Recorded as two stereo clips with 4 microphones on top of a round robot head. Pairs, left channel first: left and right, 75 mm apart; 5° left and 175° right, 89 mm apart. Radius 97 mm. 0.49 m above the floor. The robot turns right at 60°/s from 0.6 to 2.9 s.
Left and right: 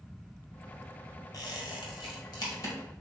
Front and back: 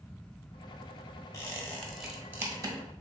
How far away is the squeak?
About 1.4 m.